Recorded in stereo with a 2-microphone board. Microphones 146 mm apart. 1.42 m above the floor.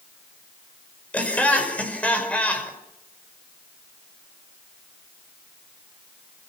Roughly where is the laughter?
Centre.